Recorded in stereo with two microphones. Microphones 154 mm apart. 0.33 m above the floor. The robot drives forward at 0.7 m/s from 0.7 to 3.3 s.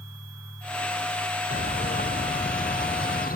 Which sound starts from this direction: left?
A bird, at 1.5 s.